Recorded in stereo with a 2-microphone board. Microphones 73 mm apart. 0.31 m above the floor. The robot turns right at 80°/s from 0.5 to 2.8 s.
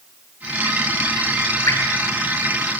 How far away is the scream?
I don't hear a scream.